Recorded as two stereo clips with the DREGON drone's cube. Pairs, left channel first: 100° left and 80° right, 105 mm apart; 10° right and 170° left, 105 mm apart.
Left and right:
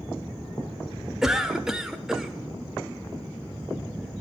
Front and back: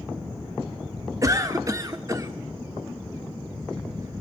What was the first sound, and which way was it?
A cough, 160° right.